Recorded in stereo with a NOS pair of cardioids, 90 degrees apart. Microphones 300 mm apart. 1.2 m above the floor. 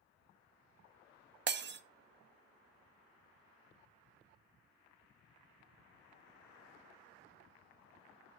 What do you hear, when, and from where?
1.5 s breaking glass: 40° right, 0.9 m